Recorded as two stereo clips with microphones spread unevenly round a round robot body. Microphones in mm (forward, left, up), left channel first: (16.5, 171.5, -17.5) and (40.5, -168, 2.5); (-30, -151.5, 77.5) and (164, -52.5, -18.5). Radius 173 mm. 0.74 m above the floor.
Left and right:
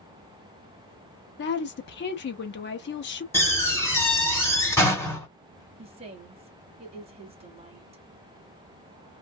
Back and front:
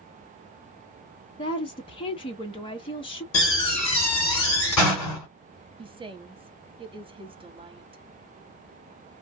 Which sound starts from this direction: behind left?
A woman speaking, at 1.4 s.